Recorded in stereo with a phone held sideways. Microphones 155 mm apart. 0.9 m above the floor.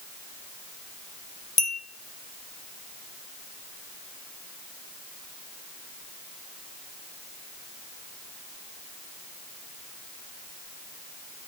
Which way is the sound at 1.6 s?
55° left (ahead or behind).